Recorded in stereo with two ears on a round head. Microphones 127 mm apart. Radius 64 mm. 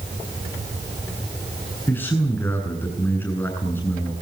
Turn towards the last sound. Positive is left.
turn(degrees=15)  # may be behind; listen again after turning